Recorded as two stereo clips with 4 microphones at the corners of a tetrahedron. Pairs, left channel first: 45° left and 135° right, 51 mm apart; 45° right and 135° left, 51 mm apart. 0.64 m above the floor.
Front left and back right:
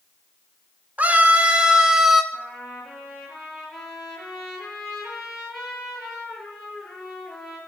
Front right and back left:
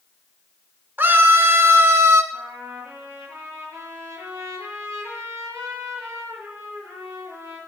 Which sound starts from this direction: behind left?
A trumpet, at 2.3 s.